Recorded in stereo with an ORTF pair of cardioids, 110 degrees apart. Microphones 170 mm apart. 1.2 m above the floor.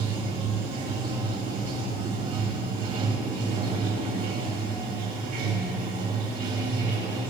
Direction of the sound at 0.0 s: 60° right.